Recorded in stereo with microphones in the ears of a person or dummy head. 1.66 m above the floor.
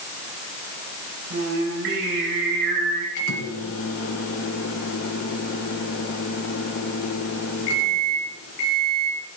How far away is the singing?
About 4.5 m.